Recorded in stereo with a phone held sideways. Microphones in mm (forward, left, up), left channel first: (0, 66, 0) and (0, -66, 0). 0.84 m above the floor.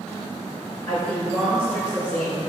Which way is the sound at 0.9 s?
25° left (ahead or behind).